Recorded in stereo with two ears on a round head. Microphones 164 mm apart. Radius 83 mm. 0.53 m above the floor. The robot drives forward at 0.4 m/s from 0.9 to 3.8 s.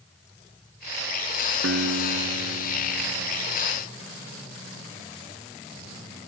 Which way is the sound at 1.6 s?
80° right.